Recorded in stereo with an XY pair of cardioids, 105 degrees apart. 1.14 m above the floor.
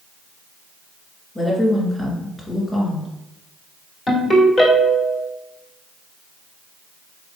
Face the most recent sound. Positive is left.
turn(degrees=40)